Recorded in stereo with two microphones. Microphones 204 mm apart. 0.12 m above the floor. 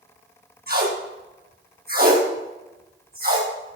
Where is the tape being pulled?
50° right (ahead or behind), 4.5 m.